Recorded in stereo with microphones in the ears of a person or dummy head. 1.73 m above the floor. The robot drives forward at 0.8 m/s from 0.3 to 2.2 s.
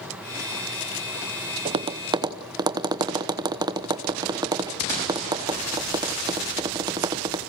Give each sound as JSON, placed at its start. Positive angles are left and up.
{"t": 1.6, "sound": "tapping", "side_deg": -30, "distance_m": 0.8}